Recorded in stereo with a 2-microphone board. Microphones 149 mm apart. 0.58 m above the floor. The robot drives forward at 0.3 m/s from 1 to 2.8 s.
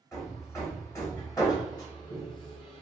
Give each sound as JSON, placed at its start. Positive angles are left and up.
{"t": 0.1, "sound": "hammering", "side_deg": 20, "distance_m": 1.3}